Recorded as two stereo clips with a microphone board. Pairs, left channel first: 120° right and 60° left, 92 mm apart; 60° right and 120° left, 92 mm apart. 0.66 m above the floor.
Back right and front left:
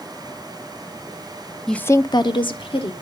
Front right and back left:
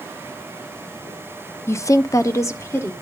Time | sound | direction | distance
1.7 | a woman speaking | 35° right | 0.6 m